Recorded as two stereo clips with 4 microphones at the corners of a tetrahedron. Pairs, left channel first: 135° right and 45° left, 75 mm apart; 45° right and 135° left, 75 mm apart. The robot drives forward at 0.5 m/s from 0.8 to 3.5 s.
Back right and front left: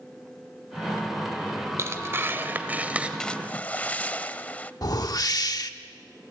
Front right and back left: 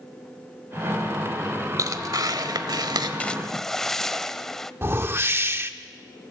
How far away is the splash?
About 0.5 m.